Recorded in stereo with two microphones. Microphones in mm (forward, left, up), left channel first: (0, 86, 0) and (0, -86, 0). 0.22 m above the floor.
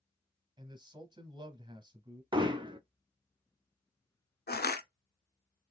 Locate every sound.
0.6 s a man speaking: 25° right (ahead or behind), 1.0 m
2.3 s hammering: 30° right (ahead or behind), 0.6 m
4.5 s crushing: 70° left (ahead or behind), 0.6 m